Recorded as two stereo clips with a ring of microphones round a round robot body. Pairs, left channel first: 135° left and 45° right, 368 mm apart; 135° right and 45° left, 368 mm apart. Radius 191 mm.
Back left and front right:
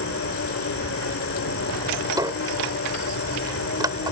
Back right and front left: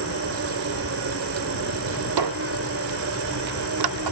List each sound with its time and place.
0.0 s an insect: 90° left
2.2 s a squeak: 35° left